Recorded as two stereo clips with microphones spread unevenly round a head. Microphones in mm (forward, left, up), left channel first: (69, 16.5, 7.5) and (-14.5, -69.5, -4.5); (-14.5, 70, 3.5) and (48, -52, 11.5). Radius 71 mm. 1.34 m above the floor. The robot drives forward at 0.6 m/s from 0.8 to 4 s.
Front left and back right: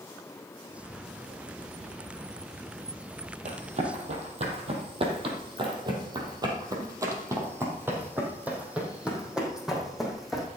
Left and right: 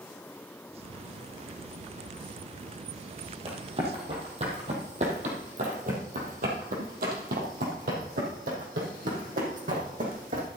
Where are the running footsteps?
110° right, 3 m; by 10.5 s 40° right, 4 m.